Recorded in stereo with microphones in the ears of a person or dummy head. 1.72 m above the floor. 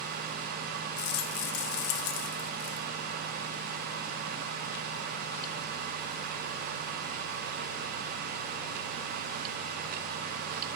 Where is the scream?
I don't hear a scream.